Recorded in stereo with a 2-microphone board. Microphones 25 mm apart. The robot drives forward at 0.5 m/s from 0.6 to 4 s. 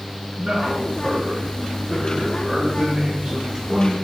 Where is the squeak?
I don't hear a squeak.